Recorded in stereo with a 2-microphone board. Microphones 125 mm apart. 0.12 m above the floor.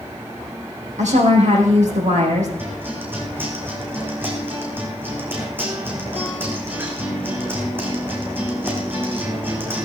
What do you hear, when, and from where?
1.0 s a woman speaking: 75° right (ahead or behind), 6 m
2.6 s a guitar: 15° right (ahead or behind), 3.5 m